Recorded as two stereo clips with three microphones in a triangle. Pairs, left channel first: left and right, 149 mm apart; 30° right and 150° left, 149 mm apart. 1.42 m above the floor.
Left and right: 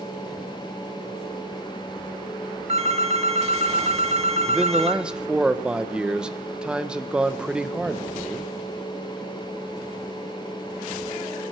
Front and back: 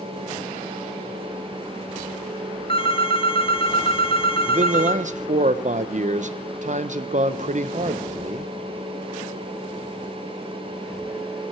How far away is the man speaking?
About 0.9 m.